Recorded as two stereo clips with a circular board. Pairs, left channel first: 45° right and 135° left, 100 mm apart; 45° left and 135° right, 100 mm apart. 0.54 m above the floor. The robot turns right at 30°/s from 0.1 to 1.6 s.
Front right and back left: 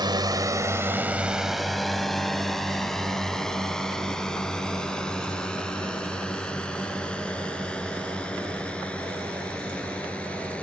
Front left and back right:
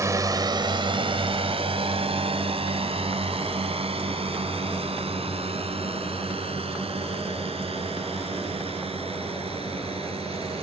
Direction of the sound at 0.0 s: 170° left.